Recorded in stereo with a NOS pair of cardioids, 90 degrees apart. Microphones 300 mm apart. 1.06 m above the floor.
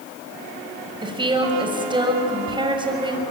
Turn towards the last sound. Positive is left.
turn(degrees=-15)